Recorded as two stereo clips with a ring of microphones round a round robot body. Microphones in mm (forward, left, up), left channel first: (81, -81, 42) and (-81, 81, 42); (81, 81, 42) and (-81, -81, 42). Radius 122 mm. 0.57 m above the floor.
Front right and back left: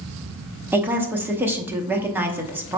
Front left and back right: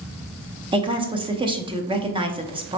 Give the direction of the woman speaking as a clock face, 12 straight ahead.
5 o'clock.